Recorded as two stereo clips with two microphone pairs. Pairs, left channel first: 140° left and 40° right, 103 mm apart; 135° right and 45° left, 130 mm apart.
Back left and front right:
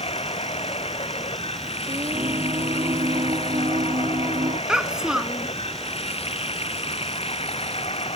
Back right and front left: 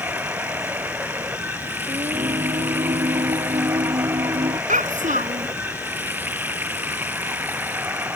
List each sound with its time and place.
0.0 s running water: 120° left
1.9 s singing: straight ahead
4.7 s a child speaking: 45° left